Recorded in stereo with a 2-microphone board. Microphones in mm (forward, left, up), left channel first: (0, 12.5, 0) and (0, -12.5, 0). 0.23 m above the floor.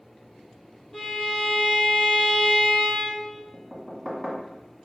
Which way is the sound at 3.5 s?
10° right (ahead or behind).